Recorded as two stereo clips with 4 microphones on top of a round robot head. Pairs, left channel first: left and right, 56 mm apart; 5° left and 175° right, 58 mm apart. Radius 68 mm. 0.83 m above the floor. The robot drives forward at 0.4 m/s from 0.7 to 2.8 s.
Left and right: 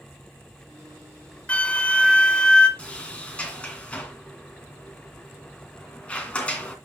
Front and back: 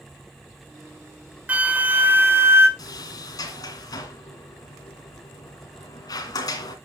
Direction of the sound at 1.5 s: 135° left.